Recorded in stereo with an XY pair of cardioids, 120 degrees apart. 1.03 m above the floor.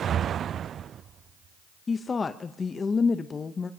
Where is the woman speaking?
30° left, 0.6 m.